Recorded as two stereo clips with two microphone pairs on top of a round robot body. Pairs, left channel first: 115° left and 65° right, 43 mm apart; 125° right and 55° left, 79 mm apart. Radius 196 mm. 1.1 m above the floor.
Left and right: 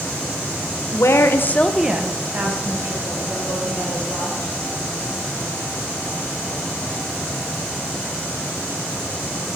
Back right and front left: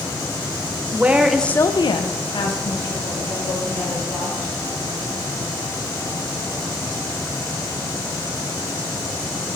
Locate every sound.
0.9 s a woman speaking: 125° left, 1.1 m; by 4.5 s 95° right, 4 m